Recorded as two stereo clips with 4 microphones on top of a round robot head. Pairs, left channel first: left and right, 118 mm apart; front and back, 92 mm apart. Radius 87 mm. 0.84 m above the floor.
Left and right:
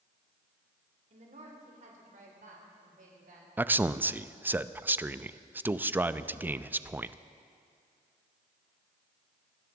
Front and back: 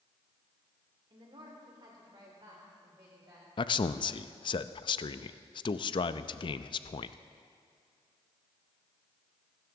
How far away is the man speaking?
About 0.5 m.